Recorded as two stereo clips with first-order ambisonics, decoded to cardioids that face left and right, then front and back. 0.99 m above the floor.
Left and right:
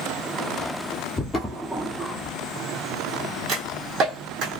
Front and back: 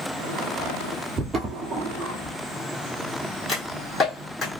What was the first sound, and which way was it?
Footsteps, 135° left.